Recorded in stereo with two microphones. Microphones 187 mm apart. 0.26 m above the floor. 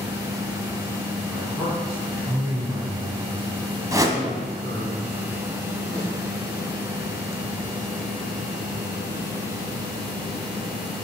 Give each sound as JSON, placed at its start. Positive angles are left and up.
{"t": 1.3, "sound": "a man speaking", "side_deg": -5, "distance_m": 3.0}
{"t": 3.9, "sound": "a whoosh", "side_deg": -20, "distance_m": 0.9}
{"t": 5.9, "sound": "a snare drum", "side_deg": -60, "distance_m": 2.0}